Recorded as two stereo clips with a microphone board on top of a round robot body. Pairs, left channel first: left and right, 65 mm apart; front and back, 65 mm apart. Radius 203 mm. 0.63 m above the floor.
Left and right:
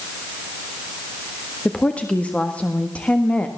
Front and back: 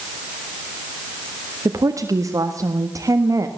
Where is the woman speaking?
160° left, 1.8 m.